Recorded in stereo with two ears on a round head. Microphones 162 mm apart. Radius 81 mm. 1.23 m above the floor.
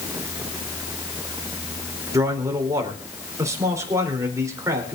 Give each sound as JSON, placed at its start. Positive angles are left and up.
{"t": 2.1, "sound": "a man speaking", "side_deg": -20, "distance_m": 3.5}